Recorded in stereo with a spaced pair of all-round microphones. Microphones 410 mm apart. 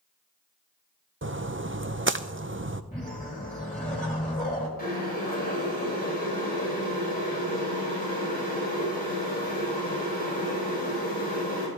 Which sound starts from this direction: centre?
A whoosh, at 2.9 s.